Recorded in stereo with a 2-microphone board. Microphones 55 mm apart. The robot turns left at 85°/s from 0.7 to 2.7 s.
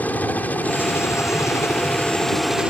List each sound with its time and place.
0.0 s a helicopter: 145° left; by 2.7 s 25° right